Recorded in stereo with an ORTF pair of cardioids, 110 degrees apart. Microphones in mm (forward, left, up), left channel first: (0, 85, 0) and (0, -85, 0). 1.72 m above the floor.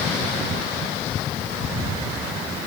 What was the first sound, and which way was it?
Only background noise.